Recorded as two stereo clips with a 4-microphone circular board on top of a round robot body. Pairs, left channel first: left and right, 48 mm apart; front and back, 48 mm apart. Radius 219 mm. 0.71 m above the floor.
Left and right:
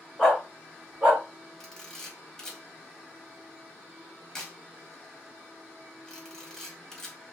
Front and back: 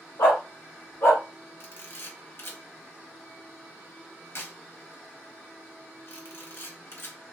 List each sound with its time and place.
0.2 s a dog barking: 10° left, 0.7 m; by 1.2 s 40° right, 1.0 m
1.6 s a camera shutter: 10° left, 1.5 m